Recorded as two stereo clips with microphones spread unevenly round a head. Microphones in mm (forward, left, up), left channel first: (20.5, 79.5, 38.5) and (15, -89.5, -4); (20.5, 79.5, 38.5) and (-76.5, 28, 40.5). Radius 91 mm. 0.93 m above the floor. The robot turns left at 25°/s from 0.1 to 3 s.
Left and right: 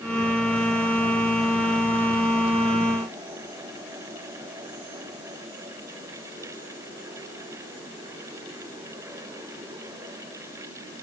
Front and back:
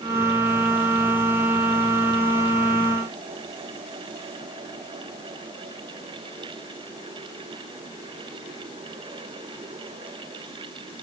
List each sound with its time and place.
Only background noise.